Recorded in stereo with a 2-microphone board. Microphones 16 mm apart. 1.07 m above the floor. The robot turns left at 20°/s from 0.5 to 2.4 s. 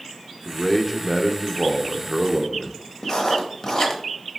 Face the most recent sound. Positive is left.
turn(degrees=45)  # may be behind; listen again after turning